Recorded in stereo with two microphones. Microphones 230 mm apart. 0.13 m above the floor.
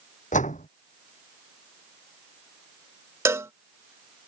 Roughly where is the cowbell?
Centre.